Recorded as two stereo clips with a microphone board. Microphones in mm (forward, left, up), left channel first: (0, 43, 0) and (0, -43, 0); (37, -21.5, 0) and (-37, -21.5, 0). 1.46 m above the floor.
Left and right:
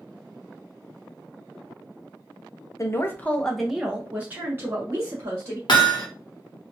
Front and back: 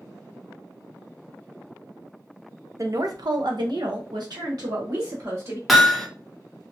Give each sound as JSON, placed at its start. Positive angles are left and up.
{"t": 2.8, "sound": "a woman speaking", "azimuth_deg": 140, "distance_m": 0.6}
{"t": 5.7, "sound": "hammering", "azimuth_deg": 90, "distance_m": 0.8}